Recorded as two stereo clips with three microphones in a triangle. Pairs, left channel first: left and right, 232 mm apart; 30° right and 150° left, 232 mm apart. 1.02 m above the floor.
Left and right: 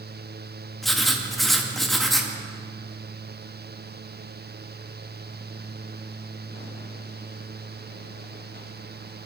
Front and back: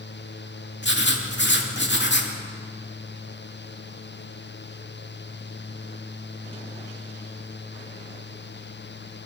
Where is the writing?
Straight ahead, 2 m.